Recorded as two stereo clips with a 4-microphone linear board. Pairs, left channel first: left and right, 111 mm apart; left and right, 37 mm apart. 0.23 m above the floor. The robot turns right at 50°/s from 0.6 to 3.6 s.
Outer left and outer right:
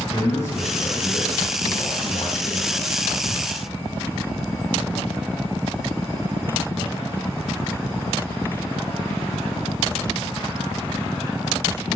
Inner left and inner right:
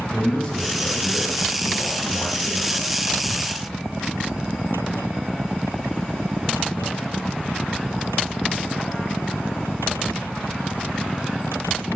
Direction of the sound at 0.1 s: 15° left.